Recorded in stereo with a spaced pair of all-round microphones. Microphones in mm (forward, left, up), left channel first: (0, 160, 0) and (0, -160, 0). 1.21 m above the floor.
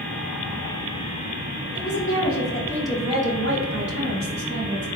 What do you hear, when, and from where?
1.8 s a woman speaking: 50° left (ahead or behind), 0.9 m; by 4.9 s 65° right (ahead or behind), 1.4 m